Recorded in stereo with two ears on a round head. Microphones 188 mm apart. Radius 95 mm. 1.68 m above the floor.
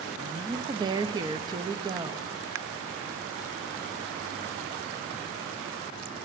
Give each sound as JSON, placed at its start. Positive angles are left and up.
{"t": 0.1, "sound": "a woman speaking", "side_deg": -20, "distance_m": 0.5}